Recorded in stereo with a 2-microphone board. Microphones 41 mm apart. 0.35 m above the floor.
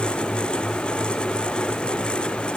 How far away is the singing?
No singing in this recording.